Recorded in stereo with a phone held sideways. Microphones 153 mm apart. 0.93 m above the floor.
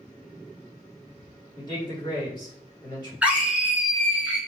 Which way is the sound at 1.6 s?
30° left (ahead or behind).